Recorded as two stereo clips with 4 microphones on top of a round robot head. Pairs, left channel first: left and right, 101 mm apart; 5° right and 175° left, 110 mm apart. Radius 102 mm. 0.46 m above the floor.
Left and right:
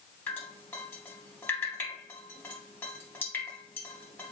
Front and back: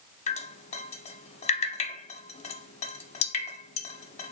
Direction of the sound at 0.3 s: 10° left.